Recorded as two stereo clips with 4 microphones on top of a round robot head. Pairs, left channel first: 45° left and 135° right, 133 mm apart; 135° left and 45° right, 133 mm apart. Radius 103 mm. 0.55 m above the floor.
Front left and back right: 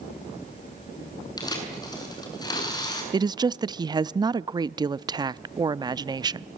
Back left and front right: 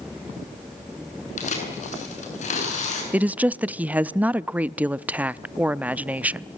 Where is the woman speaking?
115° right, 0.7 m.